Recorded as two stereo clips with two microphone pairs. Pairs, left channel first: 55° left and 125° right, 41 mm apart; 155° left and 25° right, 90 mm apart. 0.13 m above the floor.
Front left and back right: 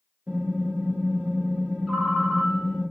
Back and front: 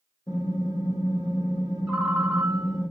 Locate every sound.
0.3 s typing on a keyboard: 175° right, 1.5 m
1.9 s a ringtone: 80° right, 1.1 m